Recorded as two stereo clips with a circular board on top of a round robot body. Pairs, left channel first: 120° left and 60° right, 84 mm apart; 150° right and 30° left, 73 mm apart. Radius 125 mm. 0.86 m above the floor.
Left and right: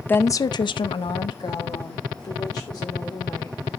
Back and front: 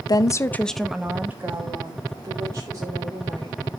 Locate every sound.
0.1 s a woman speaking: 175° right, 0.7 m; by 3.7 s 75° left, 3.5 m